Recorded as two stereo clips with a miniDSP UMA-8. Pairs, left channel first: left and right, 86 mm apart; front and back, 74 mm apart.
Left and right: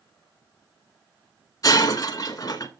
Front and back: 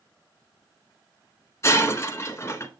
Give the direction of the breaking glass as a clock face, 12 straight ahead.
10 o'clock.